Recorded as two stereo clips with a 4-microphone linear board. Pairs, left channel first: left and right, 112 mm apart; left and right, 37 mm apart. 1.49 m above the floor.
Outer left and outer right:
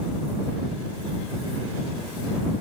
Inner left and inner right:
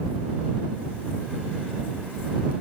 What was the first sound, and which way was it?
Only background noise.